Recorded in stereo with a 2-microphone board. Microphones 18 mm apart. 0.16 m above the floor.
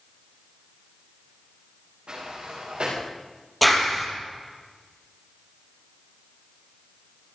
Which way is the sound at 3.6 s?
5° left (ahead or behind).